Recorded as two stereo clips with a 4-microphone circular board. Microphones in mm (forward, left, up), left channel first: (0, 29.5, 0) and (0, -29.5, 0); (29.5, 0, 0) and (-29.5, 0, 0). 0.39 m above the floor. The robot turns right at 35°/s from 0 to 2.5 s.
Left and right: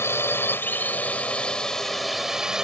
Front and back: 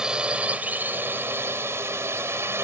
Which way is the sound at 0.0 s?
105° left.